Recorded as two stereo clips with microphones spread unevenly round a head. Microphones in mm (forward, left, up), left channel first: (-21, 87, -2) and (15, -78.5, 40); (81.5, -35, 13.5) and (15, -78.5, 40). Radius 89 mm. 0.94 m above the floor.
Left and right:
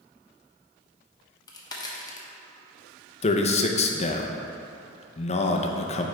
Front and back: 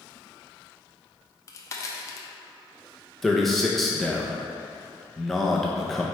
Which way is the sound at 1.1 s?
50° left.